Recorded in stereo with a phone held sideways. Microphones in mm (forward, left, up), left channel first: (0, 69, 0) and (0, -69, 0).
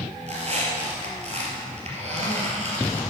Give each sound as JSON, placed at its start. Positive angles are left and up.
{"t": 0.3, "sound": "a squeak", "side_deg": -50, "distance_m": 2.5}